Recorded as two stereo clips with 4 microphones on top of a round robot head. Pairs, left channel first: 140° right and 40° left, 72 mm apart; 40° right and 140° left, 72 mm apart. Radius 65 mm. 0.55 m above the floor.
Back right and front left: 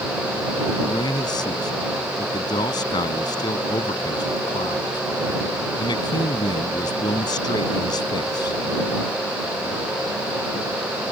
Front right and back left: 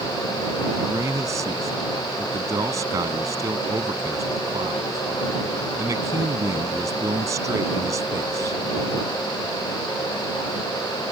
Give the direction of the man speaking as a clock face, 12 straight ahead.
6 o'clock.